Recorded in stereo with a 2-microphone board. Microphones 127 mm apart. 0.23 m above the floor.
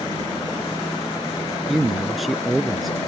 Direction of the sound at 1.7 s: Centre (ahead or behind).